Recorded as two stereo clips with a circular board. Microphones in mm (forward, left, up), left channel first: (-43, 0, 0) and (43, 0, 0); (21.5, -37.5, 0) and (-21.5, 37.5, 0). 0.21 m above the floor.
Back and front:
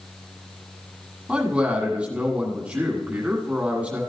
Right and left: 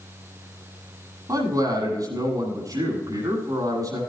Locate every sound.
1.3 s a man speaking: 75° left, 7 m